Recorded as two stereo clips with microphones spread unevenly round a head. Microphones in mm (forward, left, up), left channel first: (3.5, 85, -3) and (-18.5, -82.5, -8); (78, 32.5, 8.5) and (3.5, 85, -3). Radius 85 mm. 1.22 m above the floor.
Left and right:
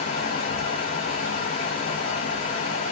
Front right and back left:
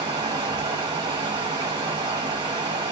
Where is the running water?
105° left, 1.9 m.